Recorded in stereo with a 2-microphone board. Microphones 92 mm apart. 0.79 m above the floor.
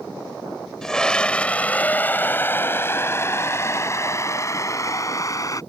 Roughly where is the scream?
Centre.